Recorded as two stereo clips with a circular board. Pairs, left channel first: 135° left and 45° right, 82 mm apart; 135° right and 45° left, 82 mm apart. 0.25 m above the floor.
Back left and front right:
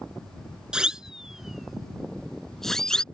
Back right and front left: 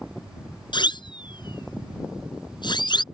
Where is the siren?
125° right; by 3.0 s 145° right.